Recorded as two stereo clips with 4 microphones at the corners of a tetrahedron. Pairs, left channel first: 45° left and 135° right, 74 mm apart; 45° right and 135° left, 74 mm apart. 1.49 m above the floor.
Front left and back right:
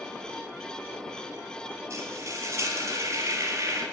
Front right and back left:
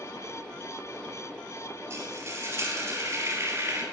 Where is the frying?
175° right, 4.5 m.